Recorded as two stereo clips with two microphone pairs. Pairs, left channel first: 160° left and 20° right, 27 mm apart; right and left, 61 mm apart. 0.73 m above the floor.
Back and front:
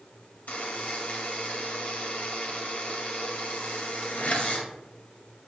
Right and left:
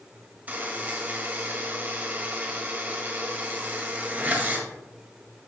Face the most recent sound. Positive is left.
turn(degrees=145)